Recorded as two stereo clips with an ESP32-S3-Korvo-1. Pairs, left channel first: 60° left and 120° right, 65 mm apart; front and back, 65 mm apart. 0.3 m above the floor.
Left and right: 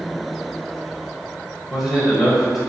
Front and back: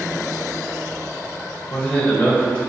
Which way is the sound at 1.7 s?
35° right.